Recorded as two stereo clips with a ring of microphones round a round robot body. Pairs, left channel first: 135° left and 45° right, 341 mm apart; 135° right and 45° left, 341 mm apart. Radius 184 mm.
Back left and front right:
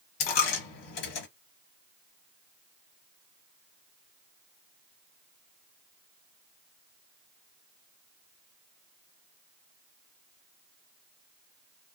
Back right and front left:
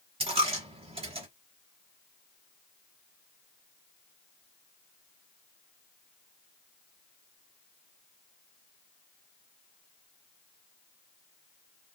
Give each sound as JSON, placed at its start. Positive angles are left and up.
{"t": 0.2, "sound": "a dropped coin", "azimuth_deg": 120, "distance_m": 0.8}